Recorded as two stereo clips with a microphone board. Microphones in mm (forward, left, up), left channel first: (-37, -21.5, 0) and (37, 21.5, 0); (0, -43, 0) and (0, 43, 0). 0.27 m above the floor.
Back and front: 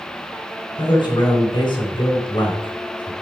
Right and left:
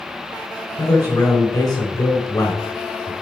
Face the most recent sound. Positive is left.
turn(degrees=-130)